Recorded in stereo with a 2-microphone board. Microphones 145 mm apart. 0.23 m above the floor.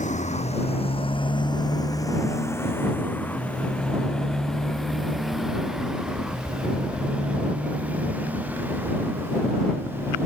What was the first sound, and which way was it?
A motorcycle, 55° left (ahead or behind).